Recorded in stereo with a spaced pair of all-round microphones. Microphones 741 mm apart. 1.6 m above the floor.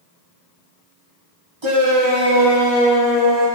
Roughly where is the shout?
Right.